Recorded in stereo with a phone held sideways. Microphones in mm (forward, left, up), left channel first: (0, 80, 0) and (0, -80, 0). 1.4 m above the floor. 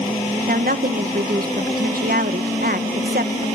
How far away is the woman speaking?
About 1.7 m.